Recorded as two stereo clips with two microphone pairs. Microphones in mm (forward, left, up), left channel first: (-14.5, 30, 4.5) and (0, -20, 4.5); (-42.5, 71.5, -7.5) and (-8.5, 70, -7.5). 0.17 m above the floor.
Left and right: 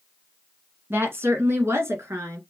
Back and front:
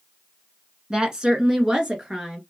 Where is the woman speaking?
65° right, 1.5 m; by 2.4 s 75° right, 2.5 m.